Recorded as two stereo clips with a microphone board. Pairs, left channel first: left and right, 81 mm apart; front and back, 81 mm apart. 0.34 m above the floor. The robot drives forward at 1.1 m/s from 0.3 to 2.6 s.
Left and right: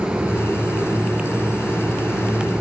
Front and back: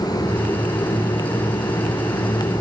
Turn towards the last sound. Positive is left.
No sound to turn to.